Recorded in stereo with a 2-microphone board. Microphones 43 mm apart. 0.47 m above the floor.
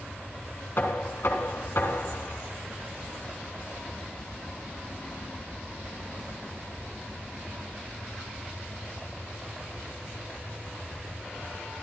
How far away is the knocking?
About 4 m.